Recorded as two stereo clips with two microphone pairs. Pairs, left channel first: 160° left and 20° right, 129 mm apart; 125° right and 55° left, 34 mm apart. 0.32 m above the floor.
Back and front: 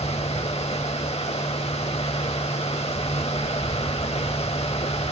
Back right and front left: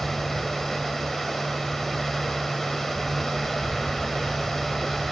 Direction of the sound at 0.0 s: 155° left.